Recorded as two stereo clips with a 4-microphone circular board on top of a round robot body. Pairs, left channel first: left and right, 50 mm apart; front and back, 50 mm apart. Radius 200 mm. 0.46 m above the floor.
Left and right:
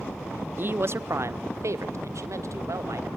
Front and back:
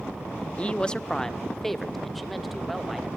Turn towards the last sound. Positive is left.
turn(degrees=-95)